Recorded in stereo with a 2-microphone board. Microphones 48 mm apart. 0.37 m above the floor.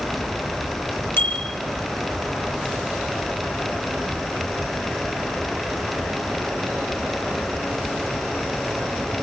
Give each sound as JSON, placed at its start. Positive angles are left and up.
{"t": 1.2, "sound": "a bicycle bell", "side_deg": 50, "distance_m": 6.0}